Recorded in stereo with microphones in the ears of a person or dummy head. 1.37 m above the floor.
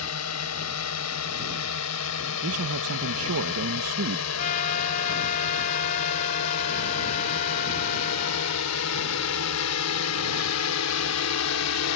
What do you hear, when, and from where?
0.0 s a drone: 85° left; by 12.0 s 80° left
2.4 s a man speaking: 75° right (ahead or behind)
4.4 s a trumpet: 45° left (ahead or behind)